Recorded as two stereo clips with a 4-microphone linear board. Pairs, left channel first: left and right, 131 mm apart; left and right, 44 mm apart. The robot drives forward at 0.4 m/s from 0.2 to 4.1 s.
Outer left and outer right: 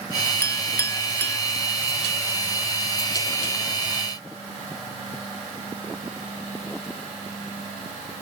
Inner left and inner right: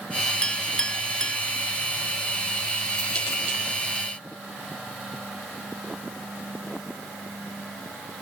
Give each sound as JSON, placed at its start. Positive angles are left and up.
{"t": 0.4, "sound": "a clink", "side_deg": 20, "distance_m": 0.7}